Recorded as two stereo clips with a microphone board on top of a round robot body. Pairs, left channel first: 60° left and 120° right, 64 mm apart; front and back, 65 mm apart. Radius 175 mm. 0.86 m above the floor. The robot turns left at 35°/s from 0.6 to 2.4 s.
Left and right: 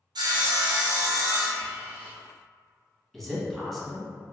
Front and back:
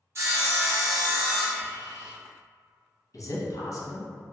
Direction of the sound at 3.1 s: 25° right.